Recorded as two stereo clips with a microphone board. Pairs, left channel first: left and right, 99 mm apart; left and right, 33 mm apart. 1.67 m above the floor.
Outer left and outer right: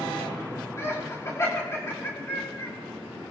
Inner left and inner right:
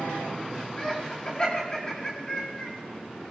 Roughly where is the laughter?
Left.